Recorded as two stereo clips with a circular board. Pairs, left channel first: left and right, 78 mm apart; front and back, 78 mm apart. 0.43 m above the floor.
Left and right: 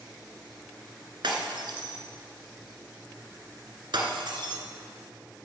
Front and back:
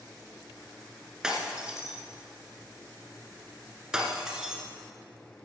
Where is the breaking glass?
100° right, 1.7 m.